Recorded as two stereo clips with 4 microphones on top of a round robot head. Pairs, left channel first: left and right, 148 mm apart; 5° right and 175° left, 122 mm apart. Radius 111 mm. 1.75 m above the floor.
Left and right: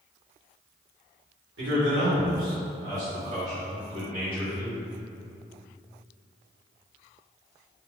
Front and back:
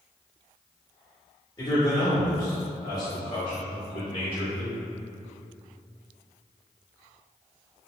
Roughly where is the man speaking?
Right.